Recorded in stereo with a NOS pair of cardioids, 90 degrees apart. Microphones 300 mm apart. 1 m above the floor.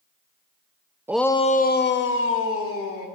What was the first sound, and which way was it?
A shout, 10° right.